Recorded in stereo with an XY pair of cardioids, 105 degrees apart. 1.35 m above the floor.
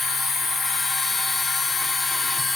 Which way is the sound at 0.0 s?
45° left.